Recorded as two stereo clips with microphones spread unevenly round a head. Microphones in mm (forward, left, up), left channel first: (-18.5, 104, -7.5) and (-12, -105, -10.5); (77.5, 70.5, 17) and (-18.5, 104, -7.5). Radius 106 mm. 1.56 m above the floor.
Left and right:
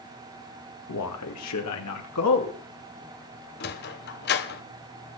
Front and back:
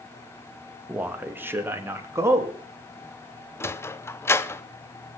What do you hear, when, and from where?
0.9 s a man speaking: 85° left, 2 m; by 2.6 s 95° left, 3 m
3.6 s a sliding door: 45° left, 0.9 m